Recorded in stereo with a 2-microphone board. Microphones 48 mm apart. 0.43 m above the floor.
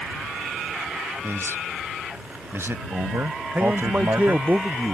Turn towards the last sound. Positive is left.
turn(degrees=-35)  # may be behind; listen again after turning